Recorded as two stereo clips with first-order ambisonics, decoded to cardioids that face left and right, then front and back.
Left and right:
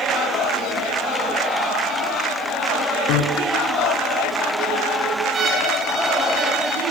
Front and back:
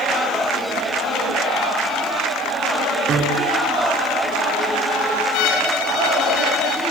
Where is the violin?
30° right, 4 m.